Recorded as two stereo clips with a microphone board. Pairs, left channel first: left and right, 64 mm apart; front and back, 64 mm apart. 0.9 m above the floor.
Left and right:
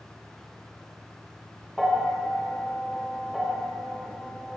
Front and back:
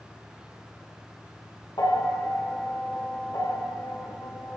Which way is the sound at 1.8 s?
Straight ahead.